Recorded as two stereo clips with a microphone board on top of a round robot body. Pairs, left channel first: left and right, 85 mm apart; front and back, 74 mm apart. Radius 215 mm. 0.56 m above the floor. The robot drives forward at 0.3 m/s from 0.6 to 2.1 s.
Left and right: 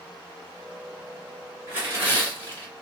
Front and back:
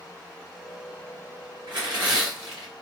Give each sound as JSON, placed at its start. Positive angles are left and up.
{"t": 1.7, "sound": "tearing paper", "azimuth_deg": -155, "distance_m": 1.9}